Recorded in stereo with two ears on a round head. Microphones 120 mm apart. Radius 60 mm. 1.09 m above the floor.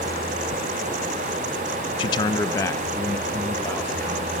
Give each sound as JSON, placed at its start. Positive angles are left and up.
{"t": 2.0, "sound": "a man speaking", "side_deg": 35, "distance_m": 0.5}